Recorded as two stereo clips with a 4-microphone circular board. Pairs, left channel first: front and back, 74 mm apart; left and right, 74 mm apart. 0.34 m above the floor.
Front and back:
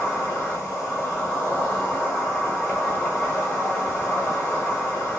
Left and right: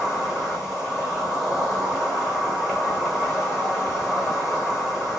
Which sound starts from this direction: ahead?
An insect, at 0.0 s.